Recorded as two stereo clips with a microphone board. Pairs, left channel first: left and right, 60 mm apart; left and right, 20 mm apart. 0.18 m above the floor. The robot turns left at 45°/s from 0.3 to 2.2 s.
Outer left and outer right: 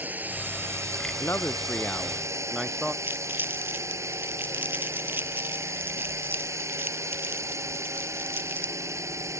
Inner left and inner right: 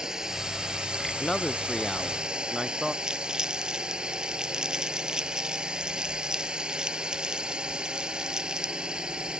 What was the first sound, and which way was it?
A drone, 30° right.